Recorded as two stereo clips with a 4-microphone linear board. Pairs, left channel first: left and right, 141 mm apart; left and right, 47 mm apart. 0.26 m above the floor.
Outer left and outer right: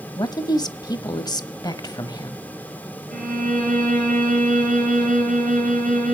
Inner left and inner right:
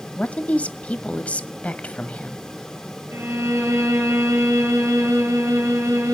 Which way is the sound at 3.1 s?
70° right (ahead or behind).